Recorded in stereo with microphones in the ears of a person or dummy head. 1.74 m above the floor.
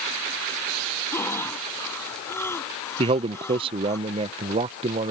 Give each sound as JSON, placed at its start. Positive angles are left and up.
{"t": 1.1, "sound": "breathing", "side_deg": 10}
{"t": 3.0, "sound": "a man speaking", "side_deg": -25}